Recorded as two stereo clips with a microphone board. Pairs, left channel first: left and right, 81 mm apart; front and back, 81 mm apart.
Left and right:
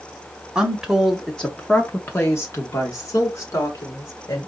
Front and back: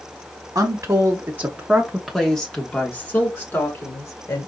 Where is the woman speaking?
165° right, 1.2 m; by 4.5 s 50° left, 2 m.